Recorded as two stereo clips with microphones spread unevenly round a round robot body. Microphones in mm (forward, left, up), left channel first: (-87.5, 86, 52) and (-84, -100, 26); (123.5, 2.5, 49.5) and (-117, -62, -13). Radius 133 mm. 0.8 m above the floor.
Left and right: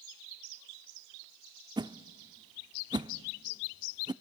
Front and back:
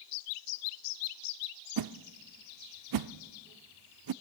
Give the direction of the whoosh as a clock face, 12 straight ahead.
5 o'clock.